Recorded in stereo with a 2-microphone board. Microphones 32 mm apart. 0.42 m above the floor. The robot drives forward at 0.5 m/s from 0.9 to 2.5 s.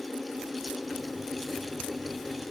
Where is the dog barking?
No dog barking in this recording.